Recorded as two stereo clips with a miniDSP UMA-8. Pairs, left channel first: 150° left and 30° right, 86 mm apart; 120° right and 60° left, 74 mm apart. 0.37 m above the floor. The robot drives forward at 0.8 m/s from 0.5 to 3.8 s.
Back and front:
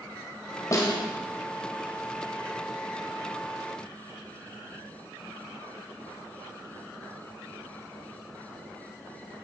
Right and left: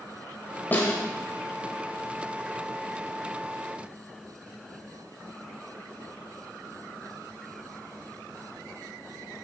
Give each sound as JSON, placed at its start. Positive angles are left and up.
{"t": 0.7, "sound": "a snare drum", "azimuth_deg": -175, "distance_m": 1.7}